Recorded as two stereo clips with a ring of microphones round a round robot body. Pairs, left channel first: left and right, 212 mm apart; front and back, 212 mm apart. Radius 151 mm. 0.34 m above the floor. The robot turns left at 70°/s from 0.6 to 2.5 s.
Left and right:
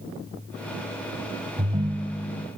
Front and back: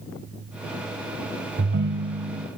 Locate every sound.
1.6 s a ringtone: 150° right, 1.3 m; by 2.5 s 145° left, 1.3 m